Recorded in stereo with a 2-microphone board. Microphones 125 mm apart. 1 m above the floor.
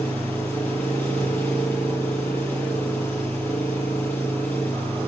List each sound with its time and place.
0.0 s an engine running: 10° left (ahead or behind), 7.5 m